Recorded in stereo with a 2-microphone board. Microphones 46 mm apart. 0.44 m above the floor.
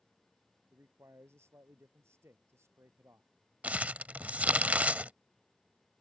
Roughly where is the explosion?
No explosion in this recording.